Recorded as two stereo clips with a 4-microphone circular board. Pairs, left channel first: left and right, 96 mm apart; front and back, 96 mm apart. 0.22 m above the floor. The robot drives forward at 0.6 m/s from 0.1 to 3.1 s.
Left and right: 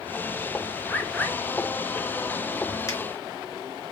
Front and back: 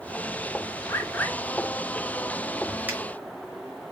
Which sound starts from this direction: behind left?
A finger snap, at 2.9 s.